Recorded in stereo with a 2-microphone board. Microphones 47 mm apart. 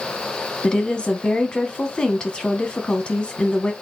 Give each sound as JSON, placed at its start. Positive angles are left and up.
{"t": 0.6, "sound": "a woman speaking", "side_deg": 20, "distance_m": 1.1}